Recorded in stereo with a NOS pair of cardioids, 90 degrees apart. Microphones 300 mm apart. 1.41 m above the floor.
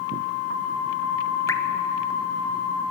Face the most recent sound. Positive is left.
turn(degrees=10)